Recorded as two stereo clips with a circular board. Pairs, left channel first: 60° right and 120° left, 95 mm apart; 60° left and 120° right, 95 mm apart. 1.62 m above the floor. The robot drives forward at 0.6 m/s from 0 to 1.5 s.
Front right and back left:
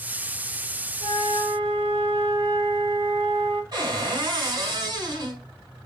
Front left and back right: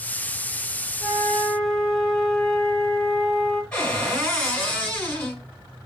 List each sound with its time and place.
1.0 s a flute: 130° left, 0.9 m; by 3.6 s 145° left, 1.1 m
3.7 s a cupboard door: 135° left, 2 m